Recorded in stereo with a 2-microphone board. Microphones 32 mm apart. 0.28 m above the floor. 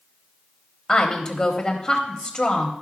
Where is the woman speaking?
20° left (ahead or behind), 1.0 m.